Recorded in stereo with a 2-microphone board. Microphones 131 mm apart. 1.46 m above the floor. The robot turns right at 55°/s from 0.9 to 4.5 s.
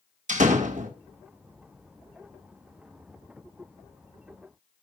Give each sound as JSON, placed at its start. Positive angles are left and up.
{"t": 0.3, "sound": "a door slam", "side_deg": -70, "distance_m": 1.9}